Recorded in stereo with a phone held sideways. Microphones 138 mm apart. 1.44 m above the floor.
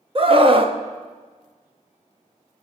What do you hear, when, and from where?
0.1 s a scream: 40° right (ahead or behind), 0.9 m